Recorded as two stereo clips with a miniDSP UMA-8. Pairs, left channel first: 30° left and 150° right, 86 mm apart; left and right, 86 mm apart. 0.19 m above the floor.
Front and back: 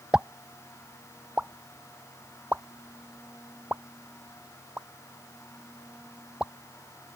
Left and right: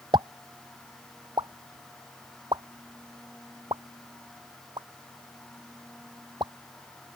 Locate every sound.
0.1 s a pop: 75° right